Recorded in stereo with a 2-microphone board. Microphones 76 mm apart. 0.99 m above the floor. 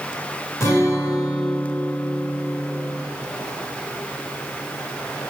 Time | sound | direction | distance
0.6 | a guitar | 40° left (ahead or behind) | 4.5 m